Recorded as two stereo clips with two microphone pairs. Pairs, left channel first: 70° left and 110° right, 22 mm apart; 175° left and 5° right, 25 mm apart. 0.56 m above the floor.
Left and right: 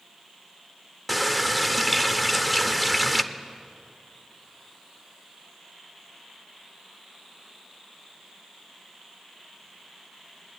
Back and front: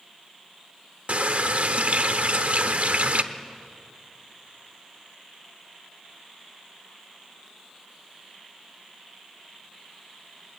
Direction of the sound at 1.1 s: 25° right.